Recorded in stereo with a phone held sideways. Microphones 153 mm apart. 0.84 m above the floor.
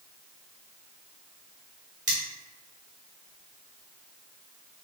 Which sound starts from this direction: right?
Cutlery clinking, at 2.1 s.